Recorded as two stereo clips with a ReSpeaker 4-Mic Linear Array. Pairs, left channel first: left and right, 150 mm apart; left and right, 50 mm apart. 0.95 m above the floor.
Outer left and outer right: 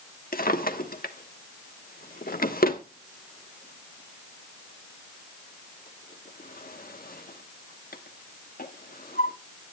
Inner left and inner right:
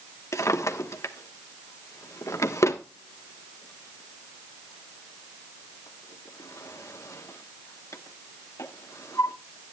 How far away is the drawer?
About 1.1 m.